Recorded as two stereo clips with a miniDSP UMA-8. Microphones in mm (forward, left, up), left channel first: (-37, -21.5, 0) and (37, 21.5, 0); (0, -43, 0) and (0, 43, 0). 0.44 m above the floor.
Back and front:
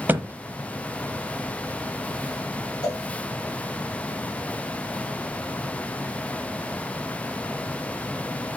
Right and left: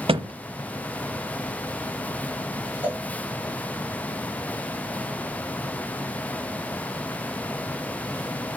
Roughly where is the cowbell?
Behind.